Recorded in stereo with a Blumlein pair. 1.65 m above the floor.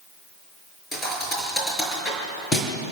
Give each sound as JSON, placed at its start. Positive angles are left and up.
{"t": 0.9, "sound": "a thud", "azimuth_deg": 15, "distance_m": 5.5}